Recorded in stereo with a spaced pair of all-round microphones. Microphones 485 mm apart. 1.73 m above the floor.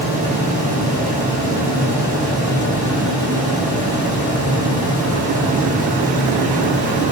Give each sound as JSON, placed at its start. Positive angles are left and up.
{"t": 0.0, "sound": "a fan", "side_deg": -15, "distance_m": 1.0}